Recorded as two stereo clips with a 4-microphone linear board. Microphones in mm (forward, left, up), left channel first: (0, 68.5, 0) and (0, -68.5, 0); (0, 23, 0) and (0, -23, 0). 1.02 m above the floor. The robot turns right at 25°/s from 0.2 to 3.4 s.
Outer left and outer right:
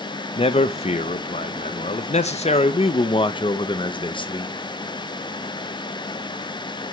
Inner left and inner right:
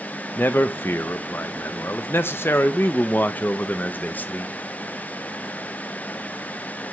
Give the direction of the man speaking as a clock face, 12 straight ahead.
10 o'clock.